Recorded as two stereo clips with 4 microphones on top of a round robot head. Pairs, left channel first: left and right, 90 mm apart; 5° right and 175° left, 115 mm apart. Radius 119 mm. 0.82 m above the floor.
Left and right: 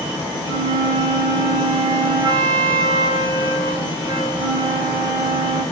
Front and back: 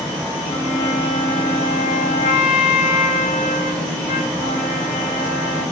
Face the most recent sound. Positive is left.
turn(degrees=-35)